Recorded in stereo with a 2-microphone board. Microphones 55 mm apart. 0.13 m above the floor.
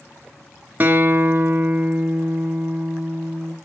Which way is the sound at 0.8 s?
30° right (ahead or behind).